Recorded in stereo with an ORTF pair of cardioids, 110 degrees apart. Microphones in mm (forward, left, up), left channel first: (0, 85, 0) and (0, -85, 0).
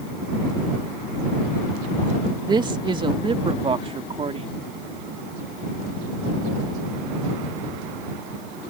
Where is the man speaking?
25° right; by 4.6 s 35° right.